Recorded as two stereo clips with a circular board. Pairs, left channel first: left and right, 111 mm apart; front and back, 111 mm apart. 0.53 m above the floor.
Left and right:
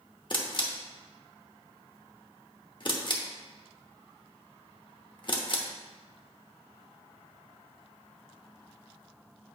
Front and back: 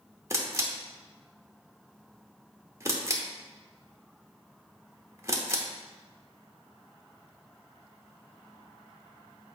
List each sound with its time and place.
0.3 s a camera shutter: 125° left, 0.9 m